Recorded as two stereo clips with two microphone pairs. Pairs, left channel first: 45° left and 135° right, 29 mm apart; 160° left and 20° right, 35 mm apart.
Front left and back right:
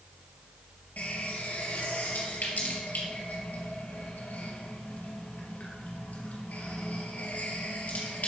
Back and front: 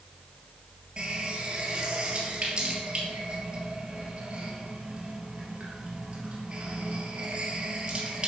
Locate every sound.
1.0 s a running tap: 35° left, 2.5 m